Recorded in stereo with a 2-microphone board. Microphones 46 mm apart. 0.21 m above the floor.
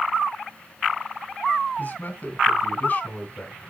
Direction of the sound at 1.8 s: 35° left (ahead or behind).